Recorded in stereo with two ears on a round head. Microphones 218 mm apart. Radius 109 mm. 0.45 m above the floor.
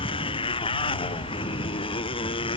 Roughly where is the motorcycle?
Left.